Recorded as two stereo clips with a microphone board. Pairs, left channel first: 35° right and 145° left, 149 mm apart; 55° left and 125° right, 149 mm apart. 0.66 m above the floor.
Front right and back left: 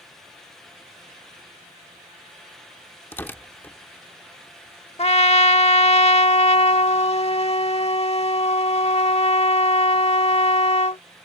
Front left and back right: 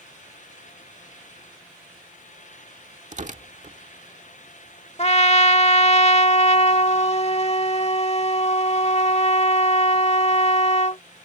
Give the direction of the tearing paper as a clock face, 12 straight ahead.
4 o'clock.